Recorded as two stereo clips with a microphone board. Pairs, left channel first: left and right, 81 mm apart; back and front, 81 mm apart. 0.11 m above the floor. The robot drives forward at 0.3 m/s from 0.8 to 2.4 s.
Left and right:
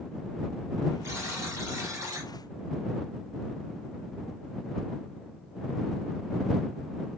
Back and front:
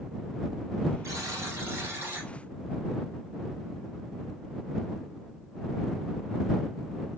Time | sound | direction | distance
1.0 | a buzzer | 40° right | 1.4 m